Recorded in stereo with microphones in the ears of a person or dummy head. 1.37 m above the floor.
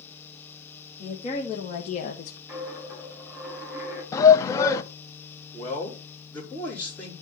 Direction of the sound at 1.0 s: 35° left (ahead or behind).